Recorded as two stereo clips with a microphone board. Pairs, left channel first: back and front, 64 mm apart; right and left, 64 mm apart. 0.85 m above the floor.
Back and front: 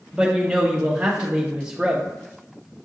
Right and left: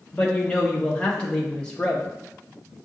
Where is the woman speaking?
45° right, 0.7 m.